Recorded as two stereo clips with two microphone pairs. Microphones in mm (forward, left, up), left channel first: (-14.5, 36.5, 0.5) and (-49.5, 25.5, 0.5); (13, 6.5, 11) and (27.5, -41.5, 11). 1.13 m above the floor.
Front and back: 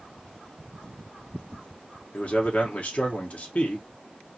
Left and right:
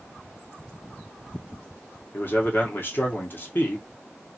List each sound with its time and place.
2.1 s a man speaking: 65° left, 0.9 m